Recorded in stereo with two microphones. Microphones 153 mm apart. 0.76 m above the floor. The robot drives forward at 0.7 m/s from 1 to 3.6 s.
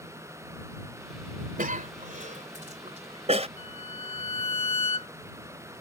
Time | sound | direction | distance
1.6 | a cough | 65° right (ahead or behind) | ?
3.6 | a violin | 40° left (ahead or behind) | ?